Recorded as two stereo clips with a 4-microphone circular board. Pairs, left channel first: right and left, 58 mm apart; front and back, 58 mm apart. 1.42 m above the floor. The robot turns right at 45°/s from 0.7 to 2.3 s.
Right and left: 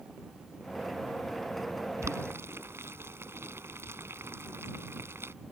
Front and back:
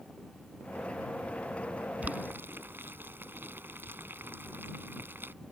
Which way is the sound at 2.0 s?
120° left.